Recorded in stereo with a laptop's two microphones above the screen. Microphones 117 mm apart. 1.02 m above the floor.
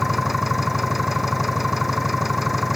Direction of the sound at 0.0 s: Centre (ahead or behind).